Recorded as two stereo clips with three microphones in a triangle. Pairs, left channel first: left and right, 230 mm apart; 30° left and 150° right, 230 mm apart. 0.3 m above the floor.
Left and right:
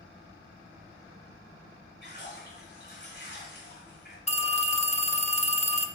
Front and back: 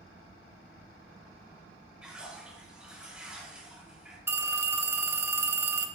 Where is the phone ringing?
140° left, 0.6 m.